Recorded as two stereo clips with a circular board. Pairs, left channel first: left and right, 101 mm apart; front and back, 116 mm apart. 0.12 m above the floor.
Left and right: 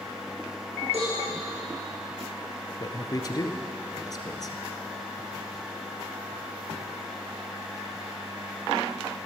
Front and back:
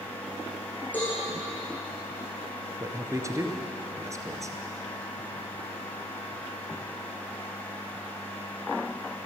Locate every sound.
0.9 s a cowbell: 75° right, 7 m
2.8 s a man speaking: 125° left, 1.5 m